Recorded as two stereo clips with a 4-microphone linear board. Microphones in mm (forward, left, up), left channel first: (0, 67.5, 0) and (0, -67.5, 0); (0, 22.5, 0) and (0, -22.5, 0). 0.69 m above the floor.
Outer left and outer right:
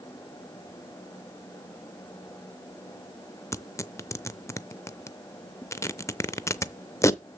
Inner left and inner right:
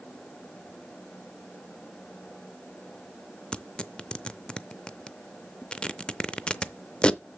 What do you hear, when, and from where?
3.5 s tearing paper: 20° left (ahead or behind), 0.5 m